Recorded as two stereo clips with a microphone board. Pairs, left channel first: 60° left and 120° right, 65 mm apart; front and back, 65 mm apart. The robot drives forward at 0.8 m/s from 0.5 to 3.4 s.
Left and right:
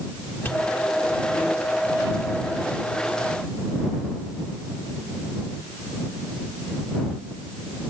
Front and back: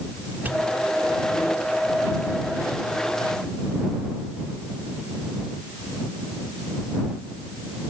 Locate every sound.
0.5 s a pop: 115° left, 1.7 m; by 0.7 s 120° left, 1.7 m